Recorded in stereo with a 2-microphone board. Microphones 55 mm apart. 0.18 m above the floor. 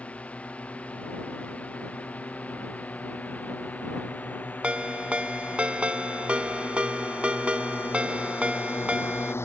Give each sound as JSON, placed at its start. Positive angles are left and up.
{"t": 0.0, "sound": "a drone", "side_deg": 25}
{"t": 4.6, "sound": "a ringtone", "side_deg": -25}